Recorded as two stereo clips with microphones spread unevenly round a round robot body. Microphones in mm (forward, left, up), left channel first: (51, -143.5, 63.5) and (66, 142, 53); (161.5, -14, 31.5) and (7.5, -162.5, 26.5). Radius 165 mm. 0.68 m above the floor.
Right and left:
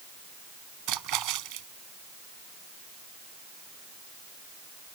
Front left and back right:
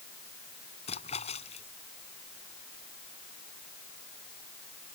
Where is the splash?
115° left.